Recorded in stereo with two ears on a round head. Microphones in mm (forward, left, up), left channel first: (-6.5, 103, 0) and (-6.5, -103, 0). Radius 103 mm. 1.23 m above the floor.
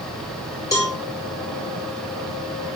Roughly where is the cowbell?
Centre.